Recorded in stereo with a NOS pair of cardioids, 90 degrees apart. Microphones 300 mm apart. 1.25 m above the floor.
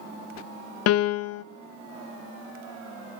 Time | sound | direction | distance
0.9 | a piano | 55° left | 0.6 m